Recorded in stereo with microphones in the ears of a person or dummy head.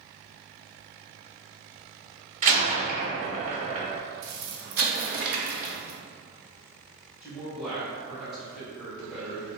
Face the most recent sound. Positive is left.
turn(degrees=0)  # may be behind; listen again after turning